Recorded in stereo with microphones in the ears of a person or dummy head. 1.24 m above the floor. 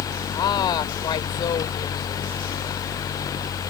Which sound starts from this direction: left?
A woman speaking, at 0.3 s.